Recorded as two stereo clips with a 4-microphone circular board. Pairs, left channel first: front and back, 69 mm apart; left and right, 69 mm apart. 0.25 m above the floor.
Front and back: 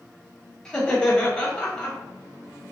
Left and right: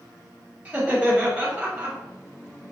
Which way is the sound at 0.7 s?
65° right.